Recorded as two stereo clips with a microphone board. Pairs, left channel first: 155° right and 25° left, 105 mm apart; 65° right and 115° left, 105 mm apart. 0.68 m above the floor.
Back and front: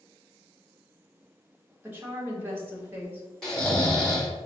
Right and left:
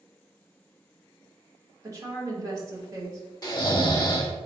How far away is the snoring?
About 0.7 m.